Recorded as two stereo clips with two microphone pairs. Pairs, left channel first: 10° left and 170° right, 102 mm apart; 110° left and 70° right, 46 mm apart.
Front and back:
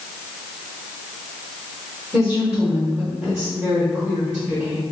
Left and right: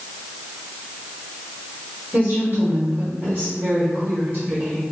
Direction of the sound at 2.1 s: 105° right.